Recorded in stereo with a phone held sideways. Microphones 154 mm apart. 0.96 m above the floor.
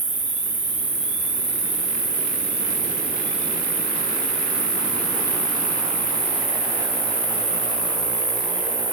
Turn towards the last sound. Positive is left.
turn(degrees=-50)  # may be behind; listen again after turning